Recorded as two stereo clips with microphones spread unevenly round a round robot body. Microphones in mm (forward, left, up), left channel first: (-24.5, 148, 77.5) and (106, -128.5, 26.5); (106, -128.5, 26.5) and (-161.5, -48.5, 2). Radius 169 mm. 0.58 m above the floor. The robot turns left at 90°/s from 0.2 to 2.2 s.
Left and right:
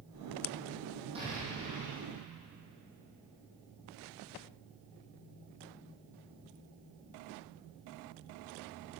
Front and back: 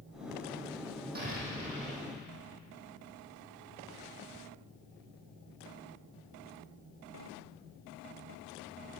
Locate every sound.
1.1 s an explosion: 140° right, 6 m; by 2.1 s 140° left, 6 m